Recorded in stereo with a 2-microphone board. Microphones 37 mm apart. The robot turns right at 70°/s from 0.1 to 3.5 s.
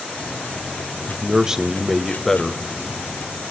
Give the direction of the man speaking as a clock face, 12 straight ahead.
2 o'clock.